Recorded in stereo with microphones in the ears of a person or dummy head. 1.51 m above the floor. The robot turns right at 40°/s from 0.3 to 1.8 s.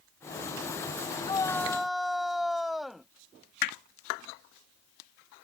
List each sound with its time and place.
1.2 s a shout: 20° left (ahead or behind); by 3.1 s centre (ahead or behind)
3.6 s hammering: 55° left (ahead or behind)